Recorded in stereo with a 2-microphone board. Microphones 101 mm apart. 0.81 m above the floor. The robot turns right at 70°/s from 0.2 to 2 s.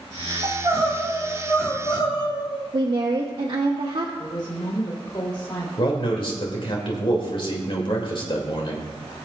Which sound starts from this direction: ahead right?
Crying, at 0.4 s.